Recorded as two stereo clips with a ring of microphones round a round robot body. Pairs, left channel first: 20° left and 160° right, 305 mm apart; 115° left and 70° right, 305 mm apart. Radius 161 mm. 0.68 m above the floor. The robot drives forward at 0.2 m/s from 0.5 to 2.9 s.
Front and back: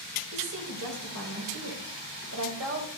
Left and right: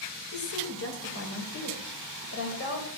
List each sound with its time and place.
0.3 s a woman speaking: 160° left, 2.5 m